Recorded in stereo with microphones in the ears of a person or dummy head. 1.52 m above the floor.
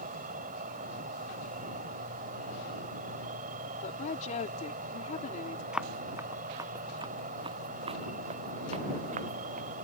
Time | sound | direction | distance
0.0 | an insect | 45° right (ahead or behind) | ?
3.8 | a woman speaking | 40° left (ahead or behind) | ?
5.7 | running footsteps | 5° right (ahead or behind) | ?